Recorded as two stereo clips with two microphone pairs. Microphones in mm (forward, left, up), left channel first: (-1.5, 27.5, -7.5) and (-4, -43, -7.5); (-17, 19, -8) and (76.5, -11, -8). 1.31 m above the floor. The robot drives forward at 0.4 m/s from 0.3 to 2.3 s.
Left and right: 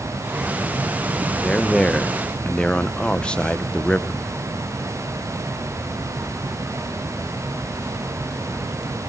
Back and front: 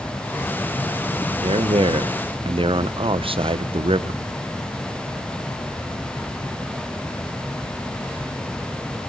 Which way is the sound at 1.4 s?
5° left.